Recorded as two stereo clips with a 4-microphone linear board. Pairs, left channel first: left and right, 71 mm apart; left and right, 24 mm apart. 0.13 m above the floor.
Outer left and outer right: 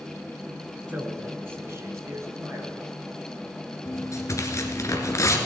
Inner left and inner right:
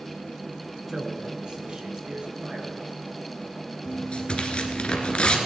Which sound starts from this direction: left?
Tearing paper, at 3.9 s.